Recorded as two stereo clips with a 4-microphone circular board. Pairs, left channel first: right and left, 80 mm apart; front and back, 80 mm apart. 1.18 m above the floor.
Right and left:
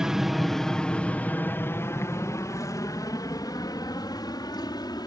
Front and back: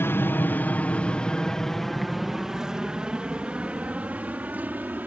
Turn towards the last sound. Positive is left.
turn(degrees=-110)